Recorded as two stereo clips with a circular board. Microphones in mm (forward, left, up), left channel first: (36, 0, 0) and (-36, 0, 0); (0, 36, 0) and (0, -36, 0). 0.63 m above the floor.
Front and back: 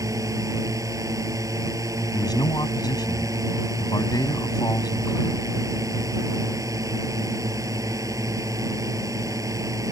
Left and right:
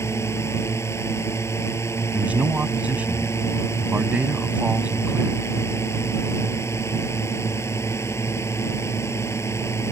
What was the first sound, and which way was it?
A drone, 140° left.